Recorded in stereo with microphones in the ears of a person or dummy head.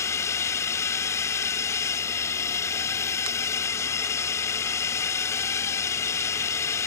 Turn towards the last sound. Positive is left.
turn(degrees=15)  # may be behind; listen again after turning